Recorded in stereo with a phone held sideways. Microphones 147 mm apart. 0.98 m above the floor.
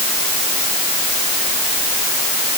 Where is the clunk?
No clunk in this recording.